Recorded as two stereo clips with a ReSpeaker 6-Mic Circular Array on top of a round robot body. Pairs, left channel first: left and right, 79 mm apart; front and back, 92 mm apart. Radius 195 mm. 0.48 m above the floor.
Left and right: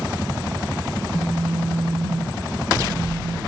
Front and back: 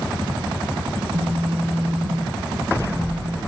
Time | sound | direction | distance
1.0 | a phone buzzing | 100° left | 1.8 m